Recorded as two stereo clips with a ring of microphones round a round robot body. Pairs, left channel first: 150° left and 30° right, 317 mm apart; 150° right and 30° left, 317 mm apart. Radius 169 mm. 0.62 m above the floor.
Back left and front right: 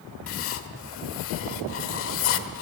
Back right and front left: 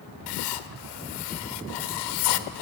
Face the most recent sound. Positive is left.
turn(degrees=-160)